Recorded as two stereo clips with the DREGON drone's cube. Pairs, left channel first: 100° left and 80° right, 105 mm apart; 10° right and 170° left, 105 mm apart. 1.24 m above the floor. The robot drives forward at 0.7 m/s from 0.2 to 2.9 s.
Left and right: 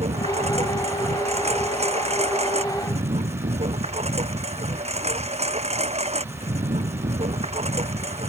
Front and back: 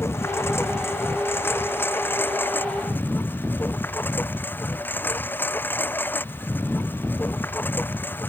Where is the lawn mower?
75° right; by 8.3 s 80° right.